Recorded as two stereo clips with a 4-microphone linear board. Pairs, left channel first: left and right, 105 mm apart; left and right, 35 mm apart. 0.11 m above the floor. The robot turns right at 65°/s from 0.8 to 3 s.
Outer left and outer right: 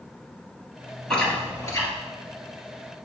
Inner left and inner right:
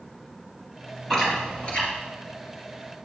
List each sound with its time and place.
1.1 s chewing: 5° left (ahead or behind), 2 m; by 1.9 s 35° left (ahead or behind), 2 m